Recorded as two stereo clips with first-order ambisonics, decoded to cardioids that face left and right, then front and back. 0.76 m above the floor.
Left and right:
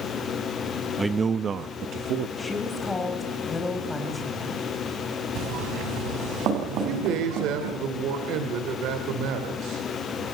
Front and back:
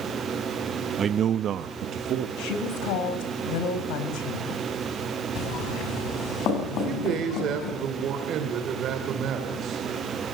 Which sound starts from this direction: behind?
A man speaking, at 1.0 s.